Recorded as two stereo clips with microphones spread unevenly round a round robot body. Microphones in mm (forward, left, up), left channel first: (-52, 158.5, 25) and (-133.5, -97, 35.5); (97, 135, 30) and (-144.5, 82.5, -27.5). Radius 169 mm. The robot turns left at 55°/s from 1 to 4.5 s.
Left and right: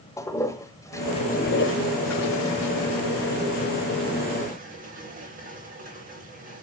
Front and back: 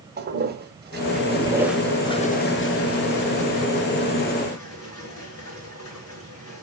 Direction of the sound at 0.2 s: 150° left.